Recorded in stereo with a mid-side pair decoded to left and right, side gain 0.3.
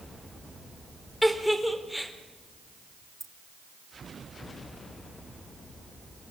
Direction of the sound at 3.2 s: 40° right.